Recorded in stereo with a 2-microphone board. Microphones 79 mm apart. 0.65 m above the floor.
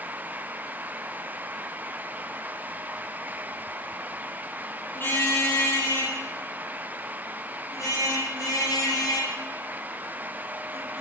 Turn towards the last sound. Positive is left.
turn(degrees=55)  # may be behind; listen again after turning